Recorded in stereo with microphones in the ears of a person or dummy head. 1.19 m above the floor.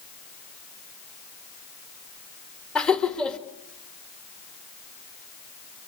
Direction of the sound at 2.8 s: 5° left (ahead or behind).